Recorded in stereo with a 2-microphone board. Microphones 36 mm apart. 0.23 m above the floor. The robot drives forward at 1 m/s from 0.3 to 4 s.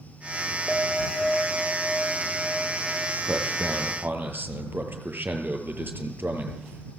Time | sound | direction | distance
0.7 | a clink | 10° right (ahead or behind) | 9 m
3.2 | a man speaking | 75° right (ahead or behind) | 6 m